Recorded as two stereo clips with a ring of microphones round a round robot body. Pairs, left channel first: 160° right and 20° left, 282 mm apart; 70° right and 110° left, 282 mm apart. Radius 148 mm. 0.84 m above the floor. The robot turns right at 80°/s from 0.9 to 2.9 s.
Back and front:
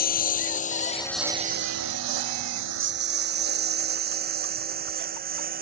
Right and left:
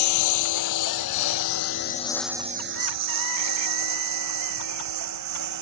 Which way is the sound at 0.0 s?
95° right.